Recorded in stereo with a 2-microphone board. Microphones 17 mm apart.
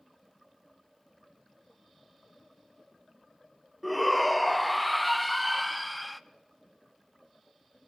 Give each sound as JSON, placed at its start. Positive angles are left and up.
{"t": 3.8, "sound": "a shout", "side_deg": 0, "distance_m": 0.5}